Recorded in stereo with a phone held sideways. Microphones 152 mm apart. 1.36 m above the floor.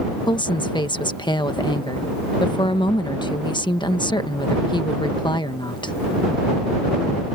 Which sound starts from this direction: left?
A woman speaking, at 0.3 s.